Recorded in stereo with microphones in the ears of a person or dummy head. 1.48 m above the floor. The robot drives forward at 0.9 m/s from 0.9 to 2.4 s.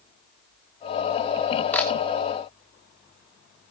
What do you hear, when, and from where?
1.7 s a camera shutter: 5° left (ahead or behind), 2.5 m